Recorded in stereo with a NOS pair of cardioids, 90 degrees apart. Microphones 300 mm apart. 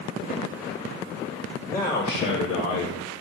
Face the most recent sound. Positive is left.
turn(degrees=75)